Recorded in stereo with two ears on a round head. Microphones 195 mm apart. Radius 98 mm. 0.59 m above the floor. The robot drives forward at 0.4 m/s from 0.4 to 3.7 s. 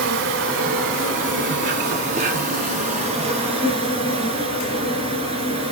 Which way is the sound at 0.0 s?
60° right (ahead or behind).